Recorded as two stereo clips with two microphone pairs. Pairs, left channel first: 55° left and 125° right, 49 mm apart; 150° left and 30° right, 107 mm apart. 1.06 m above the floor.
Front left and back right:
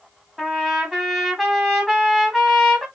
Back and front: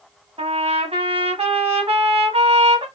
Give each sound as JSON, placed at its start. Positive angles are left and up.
{"t": 0.4, "sound": "a trumpet", "azimuth_deg": -35, "distance_m": 1.0}